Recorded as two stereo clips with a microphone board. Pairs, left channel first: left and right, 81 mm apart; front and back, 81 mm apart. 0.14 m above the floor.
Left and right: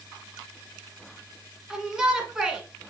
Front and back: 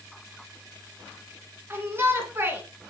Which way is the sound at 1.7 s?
165° right.